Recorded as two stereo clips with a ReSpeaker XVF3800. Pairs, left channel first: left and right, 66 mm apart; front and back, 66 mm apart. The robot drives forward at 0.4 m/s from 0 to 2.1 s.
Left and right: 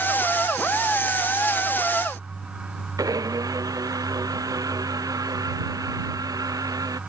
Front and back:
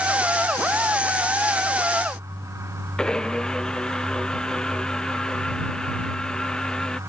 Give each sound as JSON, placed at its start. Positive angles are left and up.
{"t": 3.0, "sound": "a blender", "azimuth_deg": -75}